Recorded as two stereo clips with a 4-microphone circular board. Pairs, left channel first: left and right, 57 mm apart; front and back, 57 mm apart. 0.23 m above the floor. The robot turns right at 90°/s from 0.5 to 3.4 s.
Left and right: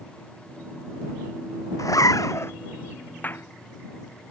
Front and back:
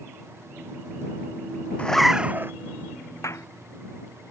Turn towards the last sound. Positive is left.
turn(degrees=45)